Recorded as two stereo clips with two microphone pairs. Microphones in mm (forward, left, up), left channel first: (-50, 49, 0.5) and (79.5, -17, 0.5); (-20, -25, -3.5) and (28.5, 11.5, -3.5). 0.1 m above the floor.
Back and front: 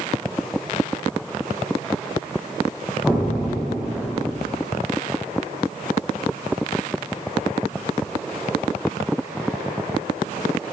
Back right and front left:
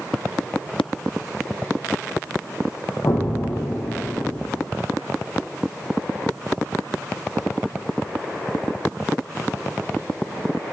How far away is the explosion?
About 0.6 m.